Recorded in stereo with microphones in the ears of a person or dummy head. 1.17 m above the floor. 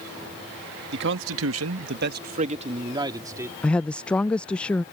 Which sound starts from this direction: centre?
A woman speaking, at 3.6 s.